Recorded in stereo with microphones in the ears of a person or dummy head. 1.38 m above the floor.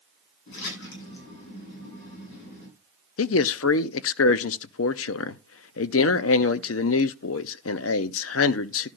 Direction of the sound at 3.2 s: 60° left (ahead or behind).